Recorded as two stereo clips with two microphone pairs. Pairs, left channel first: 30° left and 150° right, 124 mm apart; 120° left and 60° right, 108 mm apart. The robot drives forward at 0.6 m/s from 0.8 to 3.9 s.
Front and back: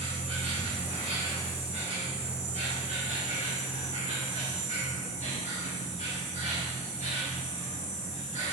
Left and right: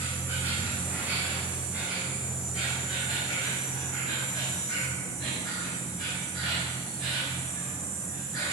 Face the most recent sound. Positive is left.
turn(degrees=-150)